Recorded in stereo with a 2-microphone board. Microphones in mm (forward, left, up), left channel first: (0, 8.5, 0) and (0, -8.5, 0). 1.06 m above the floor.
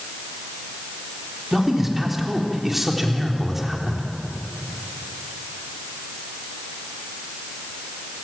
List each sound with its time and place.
1.5 s a man speaking: 15° right (ahead or behind), 3.5 m